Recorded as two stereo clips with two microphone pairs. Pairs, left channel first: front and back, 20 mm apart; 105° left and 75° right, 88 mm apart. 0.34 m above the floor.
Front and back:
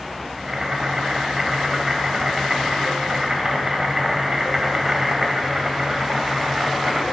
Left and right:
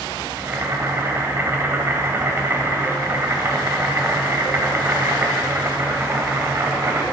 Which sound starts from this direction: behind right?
Boiling, at 0.4 s.